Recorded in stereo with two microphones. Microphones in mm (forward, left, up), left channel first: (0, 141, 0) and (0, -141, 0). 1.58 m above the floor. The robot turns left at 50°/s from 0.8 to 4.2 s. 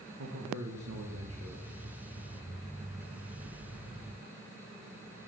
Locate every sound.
0.2 s a man speaking: 95° right, 1.5 m; by 1.7 s 140° right, 1.5 m